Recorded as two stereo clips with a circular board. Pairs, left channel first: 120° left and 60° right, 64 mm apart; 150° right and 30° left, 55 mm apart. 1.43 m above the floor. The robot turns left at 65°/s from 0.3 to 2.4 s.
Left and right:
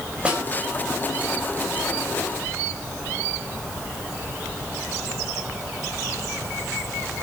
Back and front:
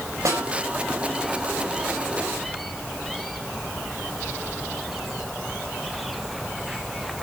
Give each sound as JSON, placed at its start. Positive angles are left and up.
{"t": 0.2, "sound": "a snare drum", "azimuth_deg": 10, "distance_m": 6.0}